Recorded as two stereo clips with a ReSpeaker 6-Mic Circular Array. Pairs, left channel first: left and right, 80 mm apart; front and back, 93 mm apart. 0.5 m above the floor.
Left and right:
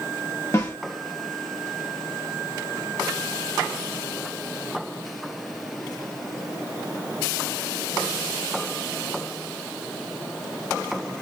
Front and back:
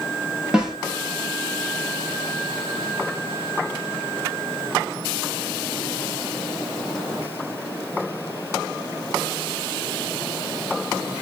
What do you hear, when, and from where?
0.5 s a snare drum: 105° left, 1.2 m